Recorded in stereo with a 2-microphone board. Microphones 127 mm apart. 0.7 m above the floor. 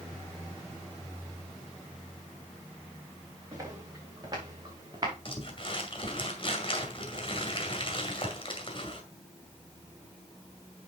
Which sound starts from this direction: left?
Crumpling, at 5.2 s.